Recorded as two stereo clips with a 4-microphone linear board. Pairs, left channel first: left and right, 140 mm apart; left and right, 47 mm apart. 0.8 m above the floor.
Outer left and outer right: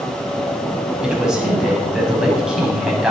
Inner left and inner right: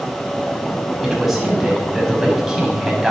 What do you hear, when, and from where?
1.0 s a man speaking: 5° right (ahead or behind), 5.5 m